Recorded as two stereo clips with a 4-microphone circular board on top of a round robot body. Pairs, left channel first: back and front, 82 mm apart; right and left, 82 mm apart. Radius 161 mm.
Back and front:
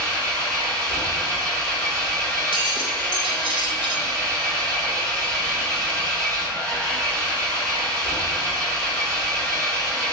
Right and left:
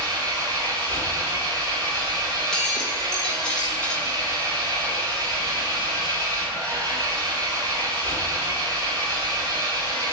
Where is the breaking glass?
10° right, 1.3 m.